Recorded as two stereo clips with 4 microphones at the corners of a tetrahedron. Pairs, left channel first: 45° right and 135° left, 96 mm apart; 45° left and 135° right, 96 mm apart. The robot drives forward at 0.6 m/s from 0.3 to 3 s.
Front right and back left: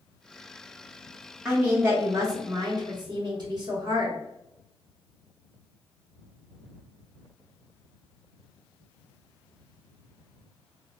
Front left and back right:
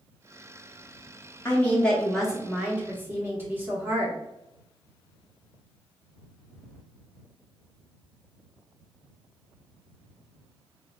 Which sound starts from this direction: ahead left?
A woman speaking, at 1.4 s.